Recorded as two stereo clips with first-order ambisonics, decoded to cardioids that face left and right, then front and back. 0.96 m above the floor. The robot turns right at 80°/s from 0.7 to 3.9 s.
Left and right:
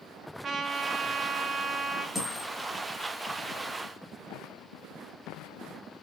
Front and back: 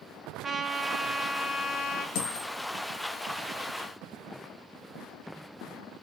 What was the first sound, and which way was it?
A trumpet, 125° right.